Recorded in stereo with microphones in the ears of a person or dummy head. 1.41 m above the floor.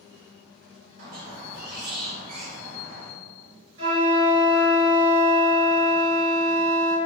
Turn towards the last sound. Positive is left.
turn(degrees=-35)  # may be behind; listen again after turning